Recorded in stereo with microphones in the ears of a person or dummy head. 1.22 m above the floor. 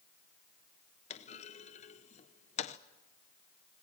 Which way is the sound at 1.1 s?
35° left (ahead or behind).